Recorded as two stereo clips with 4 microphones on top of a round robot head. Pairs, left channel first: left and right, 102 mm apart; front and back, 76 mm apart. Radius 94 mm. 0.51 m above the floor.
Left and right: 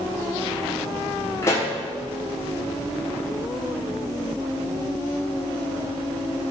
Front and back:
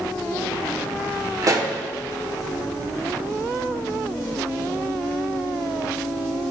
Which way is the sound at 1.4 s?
150° left.